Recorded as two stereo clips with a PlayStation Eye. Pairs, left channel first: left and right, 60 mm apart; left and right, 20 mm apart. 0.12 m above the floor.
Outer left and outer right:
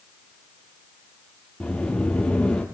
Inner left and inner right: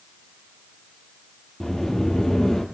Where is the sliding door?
20° left (ahead or behind), 3 m.